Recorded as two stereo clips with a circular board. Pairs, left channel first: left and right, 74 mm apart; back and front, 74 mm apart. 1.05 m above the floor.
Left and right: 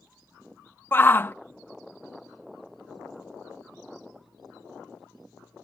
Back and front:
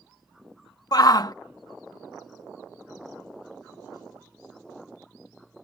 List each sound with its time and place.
0.9 s a shout: 150° left